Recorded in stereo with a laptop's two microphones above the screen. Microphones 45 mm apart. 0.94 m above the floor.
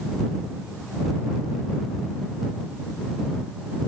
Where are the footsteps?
No footsteps in this recording.